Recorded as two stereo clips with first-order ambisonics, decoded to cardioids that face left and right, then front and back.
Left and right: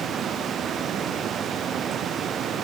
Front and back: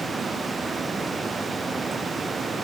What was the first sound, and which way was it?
Only background noise.